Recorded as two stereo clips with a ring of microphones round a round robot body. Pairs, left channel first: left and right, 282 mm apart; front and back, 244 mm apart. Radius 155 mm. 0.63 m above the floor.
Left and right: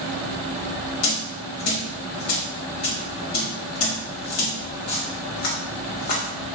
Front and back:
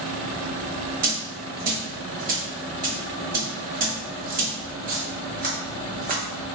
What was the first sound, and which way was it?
A dropped coin, 125° left.